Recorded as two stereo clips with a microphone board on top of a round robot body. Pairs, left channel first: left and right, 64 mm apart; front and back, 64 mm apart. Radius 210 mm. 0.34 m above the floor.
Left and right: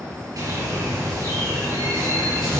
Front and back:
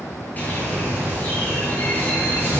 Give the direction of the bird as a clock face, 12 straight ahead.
2 o'clock.